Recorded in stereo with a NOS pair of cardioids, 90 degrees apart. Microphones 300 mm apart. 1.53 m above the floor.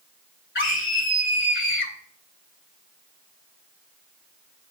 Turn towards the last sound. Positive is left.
turn(degrees=40)